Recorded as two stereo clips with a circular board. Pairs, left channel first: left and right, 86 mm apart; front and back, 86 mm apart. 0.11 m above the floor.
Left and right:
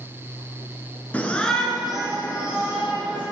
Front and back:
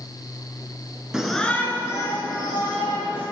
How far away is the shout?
About 1.2 m.